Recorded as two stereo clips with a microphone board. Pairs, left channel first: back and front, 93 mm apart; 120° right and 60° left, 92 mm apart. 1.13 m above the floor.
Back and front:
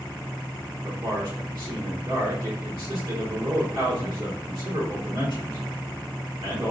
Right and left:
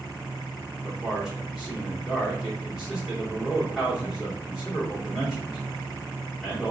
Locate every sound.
0.8 s a man speaking: 30° right, 1.7 m